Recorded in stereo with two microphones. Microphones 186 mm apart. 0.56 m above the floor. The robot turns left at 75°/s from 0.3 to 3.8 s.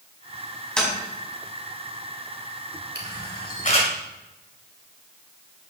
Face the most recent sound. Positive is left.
turn(degrees=35)  # may be behind; listen again after turning